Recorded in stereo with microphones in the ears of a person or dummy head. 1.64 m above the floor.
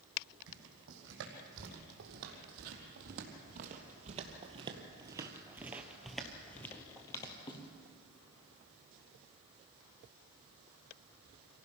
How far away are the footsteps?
About 5 m.